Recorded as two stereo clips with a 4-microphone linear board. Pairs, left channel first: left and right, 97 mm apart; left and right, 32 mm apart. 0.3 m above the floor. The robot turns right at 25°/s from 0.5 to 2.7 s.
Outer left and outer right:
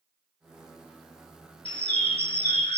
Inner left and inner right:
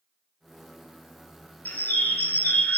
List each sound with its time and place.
1.6 s a bird: 80° left, 0.9 m; by 2.8 s 65° left (ahead or behind), 0.9 m